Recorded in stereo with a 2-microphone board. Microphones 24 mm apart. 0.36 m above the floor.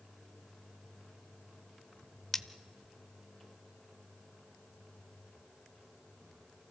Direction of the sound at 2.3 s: 10° left (ahead or behind).